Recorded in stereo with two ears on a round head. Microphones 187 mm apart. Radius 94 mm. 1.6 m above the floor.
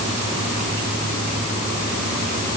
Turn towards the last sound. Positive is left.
No sound to turn to.